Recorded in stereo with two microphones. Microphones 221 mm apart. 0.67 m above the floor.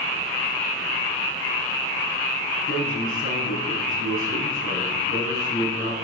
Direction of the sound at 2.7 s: 70° left (ahead or behind).